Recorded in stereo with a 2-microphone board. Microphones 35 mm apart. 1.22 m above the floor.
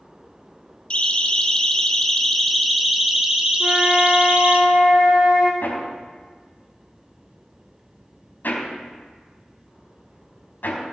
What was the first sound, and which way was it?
A siren, 35° left (ahead or behind).